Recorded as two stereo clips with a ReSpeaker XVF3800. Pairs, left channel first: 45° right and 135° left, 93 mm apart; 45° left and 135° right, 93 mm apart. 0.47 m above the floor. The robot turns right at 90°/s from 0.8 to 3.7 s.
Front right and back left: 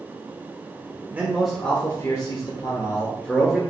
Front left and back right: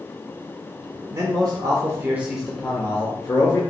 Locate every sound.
1.1 s a man speaking: 170° right, 1.3 m; by 3.6 s 55° left, 1.3 m